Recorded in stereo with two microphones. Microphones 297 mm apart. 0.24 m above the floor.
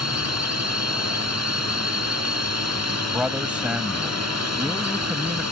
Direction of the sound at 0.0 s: 60° right (ahead or behind).